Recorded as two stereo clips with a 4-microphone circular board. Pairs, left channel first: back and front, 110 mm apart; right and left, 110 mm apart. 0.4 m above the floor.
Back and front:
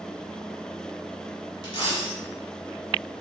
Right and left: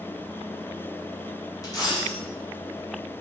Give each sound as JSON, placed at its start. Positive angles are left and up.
{"t": 1.6, "sound": "a dropped coin", "azimuth_deg": -140, "distance_m": 1.2}